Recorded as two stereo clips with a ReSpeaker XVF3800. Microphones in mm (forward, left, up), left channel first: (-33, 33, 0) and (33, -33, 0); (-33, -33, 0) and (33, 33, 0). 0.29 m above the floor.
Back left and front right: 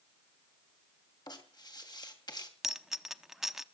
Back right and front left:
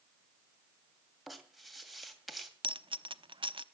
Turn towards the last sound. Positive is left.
turn(degrees=40)